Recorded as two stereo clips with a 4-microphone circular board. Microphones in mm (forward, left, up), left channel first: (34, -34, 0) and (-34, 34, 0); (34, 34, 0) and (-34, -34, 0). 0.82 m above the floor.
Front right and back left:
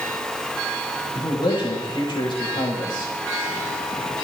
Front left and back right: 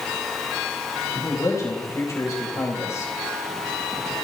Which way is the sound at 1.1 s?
10° right.